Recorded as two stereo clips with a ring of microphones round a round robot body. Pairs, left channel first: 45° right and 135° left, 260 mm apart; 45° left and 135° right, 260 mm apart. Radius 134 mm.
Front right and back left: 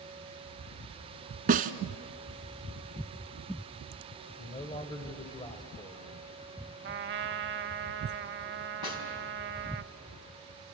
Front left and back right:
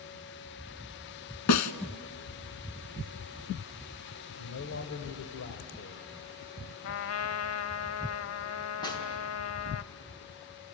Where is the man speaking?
25° left, 1.9 m.